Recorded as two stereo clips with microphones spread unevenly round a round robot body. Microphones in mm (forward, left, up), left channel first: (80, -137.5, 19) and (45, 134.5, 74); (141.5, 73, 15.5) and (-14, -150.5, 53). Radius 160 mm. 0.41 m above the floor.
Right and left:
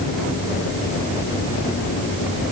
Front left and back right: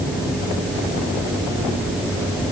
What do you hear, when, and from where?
Only background noise.